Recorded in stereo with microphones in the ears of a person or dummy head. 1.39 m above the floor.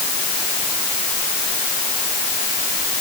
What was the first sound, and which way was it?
Only background noise.